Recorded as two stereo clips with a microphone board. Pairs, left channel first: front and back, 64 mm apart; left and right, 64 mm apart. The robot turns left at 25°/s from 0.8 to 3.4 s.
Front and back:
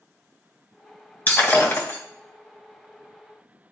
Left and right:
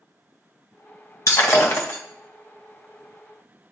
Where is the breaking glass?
55° left, 1.8 m; by 2.0 s 35° left, 1.8 m.